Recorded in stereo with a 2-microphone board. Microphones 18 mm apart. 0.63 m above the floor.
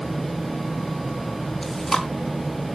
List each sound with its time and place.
1.6 s chewing: 20° left (ahead or behind), 3 m